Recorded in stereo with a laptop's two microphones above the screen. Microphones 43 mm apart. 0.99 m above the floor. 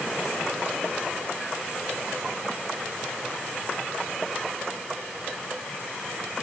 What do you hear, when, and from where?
Only background noise.